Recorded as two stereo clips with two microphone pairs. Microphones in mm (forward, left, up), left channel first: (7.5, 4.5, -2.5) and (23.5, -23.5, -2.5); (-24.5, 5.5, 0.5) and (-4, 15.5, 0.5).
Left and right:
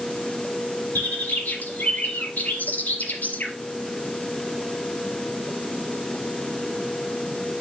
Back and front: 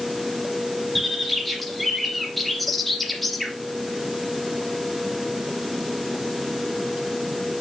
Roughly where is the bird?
Behind left.